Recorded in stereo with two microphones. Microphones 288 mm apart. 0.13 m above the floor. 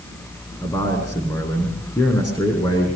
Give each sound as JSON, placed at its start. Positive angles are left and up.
{"t": 0.6, "sound": "a man speaking", "side_deg": 15, "distance_m": 7.5}